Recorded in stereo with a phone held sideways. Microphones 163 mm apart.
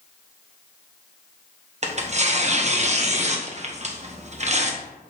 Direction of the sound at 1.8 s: 45° right (ahead or behind).